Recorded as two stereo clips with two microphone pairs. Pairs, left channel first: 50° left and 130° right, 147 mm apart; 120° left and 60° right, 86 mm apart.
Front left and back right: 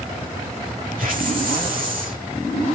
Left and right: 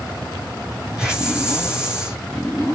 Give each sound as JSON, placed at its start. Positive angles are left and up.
{"t": 1.0, "sound": "a hiss", "azimuth_deg": -135, "distance_m": 5.0}